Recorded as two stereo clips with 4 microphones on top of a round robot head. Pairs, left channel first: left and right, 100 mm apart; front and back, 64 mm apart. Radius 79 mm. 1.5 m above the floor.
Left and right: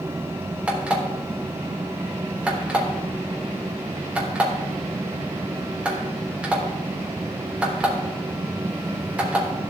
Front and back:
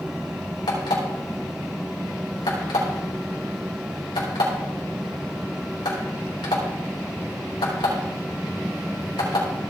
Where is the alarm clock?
10° right, 3.5 m.